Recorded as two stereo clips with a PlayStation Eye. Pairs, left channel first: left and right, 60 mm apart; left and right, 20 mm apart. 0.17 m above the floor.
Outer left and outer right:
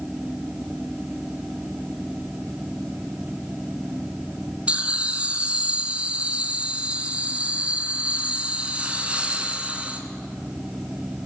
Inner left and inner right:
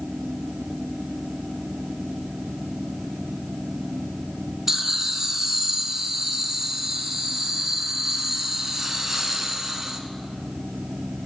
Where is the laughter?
20° right (ahead or behind), 1.6 m.